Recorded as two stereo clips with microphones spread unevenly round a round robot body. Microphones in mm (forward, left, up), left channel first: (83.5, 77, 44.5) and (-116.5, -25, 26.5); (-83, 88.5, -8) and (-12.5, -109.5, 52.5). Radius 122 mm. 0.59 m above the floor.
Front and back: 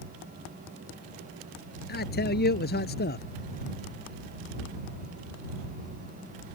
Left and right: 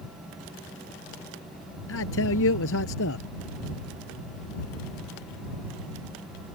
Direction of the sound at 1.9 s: 75° left.